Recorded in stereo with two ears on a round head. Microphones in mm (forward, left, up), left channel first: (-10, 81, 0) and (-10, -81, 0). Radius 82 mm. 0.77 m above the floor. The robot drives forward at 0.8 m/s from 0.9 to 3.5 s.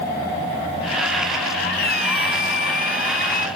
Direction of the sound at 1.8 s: 60° left (ahead or behind).